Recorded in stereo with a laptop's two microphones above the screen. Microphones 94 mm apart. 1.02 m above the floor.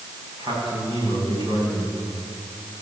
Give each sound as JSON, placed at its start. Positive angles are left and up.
{"t": 0.4, "sound": "a man speaking", "side_deg": -55, "distance_m": 8.5}